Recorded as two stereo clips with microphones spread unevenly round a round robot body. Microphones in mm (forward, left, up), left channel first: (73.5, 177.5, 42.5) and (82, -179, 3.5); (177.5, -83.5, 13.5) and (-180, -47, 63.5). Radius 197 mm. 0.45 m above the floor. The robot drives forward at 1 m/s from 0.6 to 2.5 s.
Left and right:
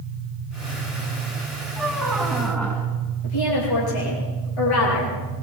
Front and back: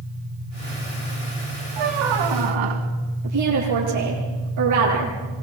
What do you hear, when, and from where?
1.8 s a squeak: straight behind, 2 m
3.2 s a woman speaking: 125° left, 9.5 m